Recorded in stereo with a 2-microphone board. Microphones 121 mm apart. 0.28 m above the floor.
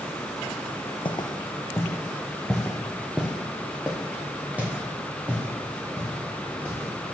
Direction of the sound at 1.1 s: 40° left (ahead or behind).